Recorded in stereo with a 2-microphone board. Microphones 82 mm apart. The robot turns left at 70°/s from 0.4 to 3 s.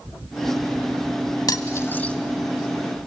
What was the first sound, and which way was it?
Cutlery clinking, 50° left (ahead or behind).